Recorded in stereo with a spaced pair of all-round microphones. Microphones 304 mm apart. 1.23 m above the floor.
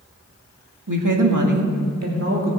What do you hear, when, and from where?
0.9 s a woman speaking: 70° right (ahead or behind), 1.9 m; by 2.5 s 45° right (ahead or behind), 2.5 m